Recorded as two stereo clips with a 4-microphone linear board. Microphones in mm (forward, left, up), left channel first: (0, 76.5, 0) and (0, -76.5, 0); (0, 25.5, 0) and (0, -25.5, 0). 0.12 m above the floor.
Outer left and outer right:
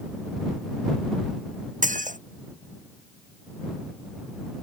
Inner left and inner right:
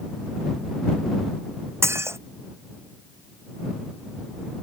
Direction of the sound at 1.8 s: 60° right (ahead or behind).